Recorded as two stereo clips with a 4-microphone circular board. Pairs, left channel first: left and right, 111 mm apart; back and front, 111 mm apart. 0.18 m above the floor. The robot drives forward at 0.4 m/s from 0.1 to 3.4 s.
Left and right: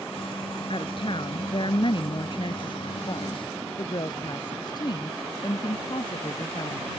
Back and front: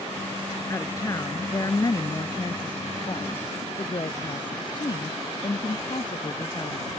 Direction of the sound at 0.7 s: 120° left.